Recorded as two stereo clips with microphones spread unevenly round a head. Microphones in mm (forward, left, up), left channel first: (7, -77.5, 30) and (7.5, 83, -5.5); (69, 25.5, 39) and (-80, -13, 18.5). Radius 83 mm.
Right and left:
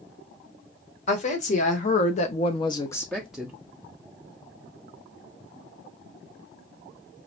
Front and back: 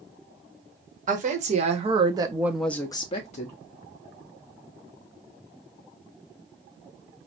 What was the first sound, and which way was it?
A woman speaking, 140° right.